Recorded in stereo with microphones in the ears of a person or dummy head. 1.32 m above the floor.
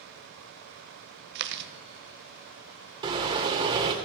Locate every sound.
1.4 s chewing: 65° right (ahead or behind), 1.0 m
3.0 s a car horn: 25° right (ahead or behind), 2.5 m